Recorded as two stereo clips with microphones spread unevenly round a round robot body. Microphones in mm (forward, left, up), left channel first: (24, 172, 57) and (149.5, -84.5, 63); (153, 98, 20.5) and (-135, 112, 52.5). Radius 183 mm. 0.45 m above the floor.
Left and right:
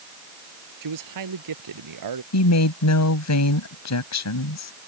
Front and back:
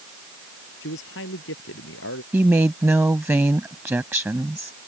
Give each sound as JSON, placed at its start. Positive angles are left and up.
{"t": 0.8, "sound": "a man speaking", "azimuth_deg": -60}
{"t": 2.3, "sound": "a woman speaking", "azimuth_deg": 95}